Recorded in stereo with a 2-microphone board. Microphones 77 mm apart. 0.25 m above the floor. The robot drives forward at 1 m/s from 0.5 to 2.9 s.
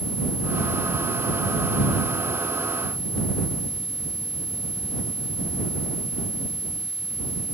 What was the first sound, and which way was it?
Only background noise.